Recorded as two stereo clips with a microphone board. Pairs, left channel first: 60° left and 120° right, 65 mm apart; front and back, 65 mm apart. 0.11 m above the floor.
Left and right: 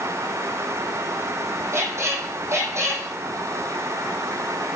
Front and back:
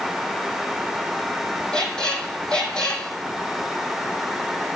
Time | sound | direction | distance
1.7 | a squeak | 75° right | 1.8 m